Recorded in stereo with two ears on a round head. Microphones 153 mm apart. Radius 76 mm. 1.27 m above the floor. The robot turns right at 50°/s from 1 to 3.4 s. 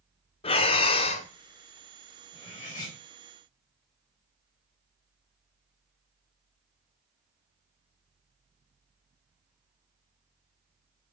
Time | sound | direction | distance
0.4 | breathing | 35° left (ahead or behind) | 0.7 m
2.3 | cutlery clinking | 25° left | 3.5 m